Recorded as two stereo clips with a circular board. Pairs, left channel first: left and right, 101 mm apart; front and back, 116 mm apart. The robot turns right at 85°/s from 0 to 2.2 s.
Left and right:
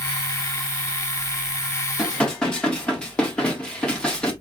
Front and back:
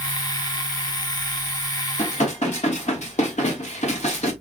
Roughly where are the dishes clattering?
Ahead.